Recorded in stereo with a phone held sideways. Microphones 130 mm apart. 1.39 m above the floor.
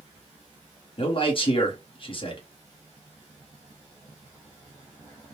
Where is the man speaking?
40° left (ahead or behind), 1.3 m.